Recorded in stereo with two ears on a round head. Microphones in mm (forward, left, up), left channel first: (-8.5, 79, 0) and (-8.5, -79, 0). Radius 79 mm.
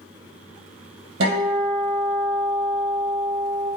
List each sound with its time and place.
1.2 s a guitar: 65° right (ahead or behind), 3.5 m